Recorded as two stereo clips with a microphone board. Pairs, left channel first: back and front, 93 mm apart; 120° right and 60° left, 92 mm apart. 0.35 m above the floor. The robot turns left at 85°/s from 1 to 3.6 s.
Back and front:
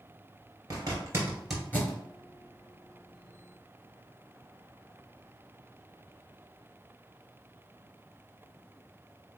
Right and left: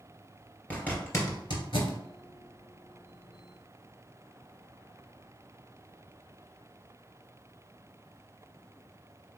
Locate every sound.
0.7 s a zipper: 45° right, 2.0 m; by 2.0 s 130° right, 2.0 m